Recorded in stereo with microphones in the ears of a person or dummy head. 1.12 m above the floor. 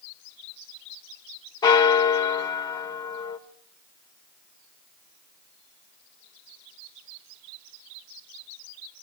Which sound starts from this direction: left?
A bell, at 1.6 s.